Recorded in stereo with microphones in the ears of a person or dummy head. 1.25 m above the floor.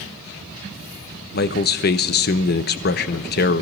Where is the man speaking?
55° left (ahead or behind), 0.7 m.